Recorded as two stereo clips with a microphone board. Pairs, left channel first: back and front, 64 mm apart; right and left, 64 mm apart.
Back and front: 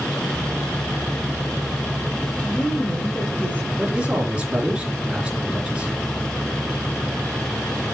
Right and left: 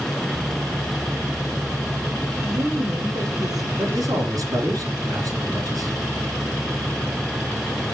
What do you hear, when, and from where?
2.4 s a woman speaking: 110° left, 4.5 m
3.8 s a man speaking: 75° left, 3.5 m